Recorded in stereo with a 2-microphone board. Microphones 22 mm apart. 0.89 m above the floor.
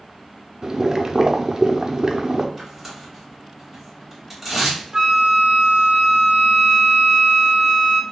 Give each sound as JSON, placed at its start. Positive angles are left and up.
{"t": 0.6, "sound": "boiling", "side_deg": -20, "distance_m": 0.5}
{"t": 2.6, "sound": "tearing paper", "side_deg": -10, "distance_m": 2.0}
{"t": 4.9, "sound": "a flute", "side_deg": -20, "distance_m": 0.7}